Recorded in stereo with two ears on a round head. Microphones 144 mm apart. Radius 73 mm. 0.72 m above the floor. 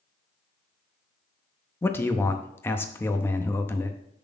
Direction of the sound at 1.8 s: 15° left (ahead or behind).